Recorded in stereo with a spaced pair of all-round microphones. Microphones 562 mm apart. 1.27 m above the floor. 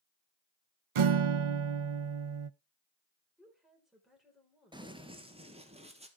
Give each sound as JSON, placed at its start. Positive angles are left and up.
{"t": 0.9, "sound": "a guitar", "side_deg": -65, "distance_m": 0.6}
{"t": 3.4, "sound": "a woman speaking", "side_deg": 0, "distance_m": 5.0}
{"t": 4.7, "sound": "running footsteps", "side_deg": -10, "distance_m": 1.3}